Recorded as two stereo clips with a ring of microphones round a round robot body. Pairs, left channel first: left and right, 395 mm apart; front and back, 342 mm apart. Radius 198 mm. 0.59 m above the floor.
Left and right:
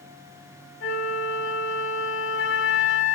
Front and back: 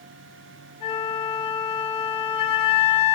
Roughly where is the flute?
Ahead left.